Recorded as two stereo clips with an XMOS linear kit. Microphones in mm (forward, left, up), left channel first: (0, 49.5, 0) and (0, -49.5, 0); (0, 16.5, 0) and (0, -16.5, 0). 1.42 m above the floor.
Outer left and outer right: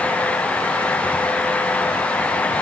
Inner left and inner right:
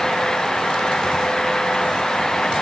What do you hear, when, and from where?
Only background noise.